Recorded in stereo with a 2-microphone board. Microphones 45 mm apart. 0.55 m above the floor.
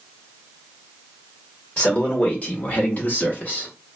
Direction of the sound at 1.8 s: 25° left (ahead or behind).